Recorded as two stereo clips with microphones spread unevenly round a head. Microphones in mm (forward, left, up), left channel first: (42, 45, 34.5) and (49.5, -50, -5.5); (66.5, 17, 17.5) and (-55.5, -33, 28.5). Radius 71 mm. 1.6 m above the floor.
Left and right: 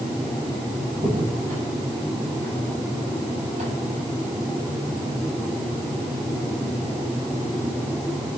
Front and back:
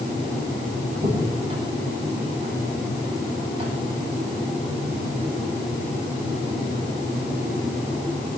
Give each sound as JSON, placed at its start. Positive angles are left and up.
{"t": 0.9, "sound": "a crack", "azimuth_deg": -110, "distance_m": 8.5}